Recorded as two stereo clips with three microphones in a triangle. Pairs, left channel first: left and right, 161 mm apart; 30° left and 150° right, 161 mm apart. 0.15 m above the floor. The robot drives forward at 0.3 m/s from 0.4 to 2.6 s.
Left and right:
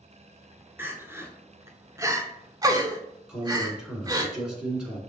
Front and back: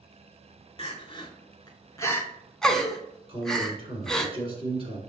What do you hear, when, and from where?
0.8 s crying: 15° right, 0.8 m; by 4.3 s 55° right, 0.5 m
3.3 s a man speaking: 170° right, 1.5 m